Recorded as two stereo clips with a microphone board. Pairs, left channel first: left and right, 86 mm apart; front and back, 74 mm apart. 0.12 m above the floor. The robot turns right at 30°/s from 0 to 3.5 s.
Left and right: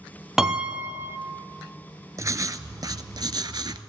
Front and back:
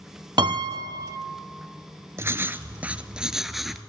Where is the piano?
175° right, 0.6 m; by 1.2 s 150° right, 0.6 m.